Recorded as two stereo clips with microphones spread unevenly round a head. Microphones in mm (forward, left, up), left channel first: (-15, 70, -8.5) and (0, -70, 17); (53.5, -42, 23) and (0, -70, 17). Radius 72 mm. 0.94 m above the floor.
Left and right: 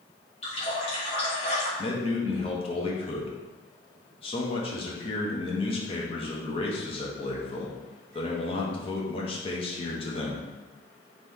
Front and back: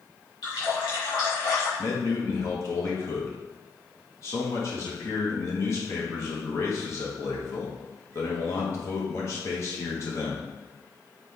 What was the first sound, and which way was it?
A running tap, 45° left.